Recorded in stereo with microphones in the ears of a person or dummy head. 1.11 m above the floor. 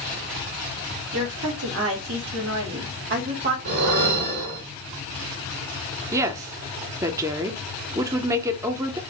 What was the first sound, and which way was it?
A woman speaking, 75° right (ahead or behind).